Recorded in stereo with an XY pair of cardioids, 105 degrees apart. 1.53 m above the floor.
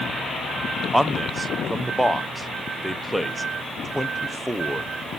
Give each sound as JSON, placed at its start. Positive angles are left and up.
{"t": 0.9, "sound": "a man speaking", "azimuth_deg": -10, "distance_m": 0.9}